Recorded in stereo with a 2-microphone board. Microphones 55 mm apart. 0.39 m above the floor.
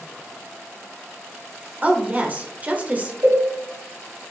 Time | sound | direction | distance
1.8 | a woman speaking | 30° right (ahead or behind) | 1.3 m
3.2 | a cowbell | 75° right (ahead or behind) | 3.5 m